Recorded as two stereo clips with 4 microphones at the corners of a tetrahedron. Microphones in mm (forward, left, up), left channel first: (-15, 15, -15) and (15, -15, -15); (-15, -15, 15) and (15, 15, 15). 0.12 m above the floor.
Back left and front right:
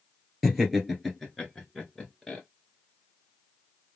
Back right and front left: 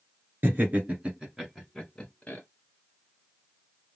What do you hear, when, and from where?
0.4 s laughter: 40° left, 1.7 m; by 2.4 s 160° right, 1.4 m